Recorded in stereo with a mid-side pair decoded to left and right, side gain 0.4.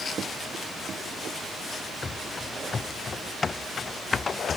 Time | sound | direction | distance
2.0 | running footsteps | 40° left | ?